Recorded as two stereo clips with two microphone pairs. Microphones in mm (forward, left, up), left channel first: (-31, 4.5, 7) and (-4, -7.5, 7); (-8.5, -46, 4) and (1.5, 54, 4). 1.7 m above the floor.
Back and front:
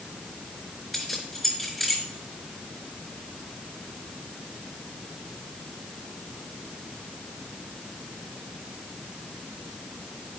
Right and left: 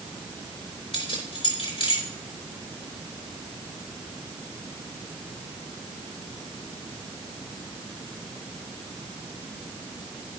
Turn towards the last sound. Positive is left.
turn(degrees=-120)